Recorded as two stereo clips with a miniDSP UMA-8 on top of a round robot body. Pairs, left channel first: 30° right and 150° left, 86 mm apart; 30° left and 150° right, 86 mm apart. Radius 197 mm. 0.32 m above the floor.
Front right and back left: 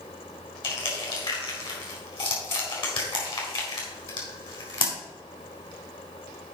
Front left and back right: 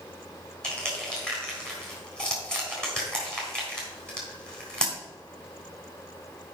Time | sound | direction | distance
0.6 | crushing | 50° right | 3.5 m